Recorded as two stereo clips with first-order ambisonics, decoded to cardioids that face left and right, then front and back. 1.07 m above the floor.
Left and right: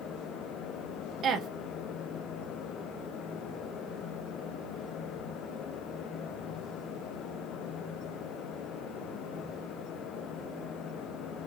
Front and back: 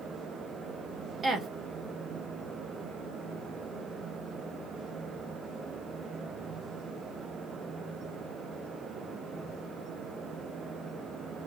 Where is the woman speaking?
125° right, 0.5 m.